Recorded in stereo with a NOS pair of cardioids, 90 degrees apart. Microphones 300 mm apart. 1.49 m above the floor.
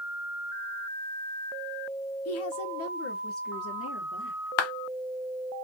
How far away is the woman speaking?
About 0.7 m.